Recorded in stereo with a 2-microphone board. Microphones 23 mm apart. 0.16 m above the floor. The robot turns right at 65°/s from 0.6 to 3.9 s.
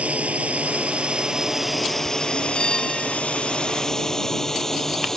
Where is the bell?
140° left; by 3.2 s 175° right.